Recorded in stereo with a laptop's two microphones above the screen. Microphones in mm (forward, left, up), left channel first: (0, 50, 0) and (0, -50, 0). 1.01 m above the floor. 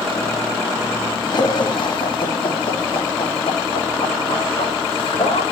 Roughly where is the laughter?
Left.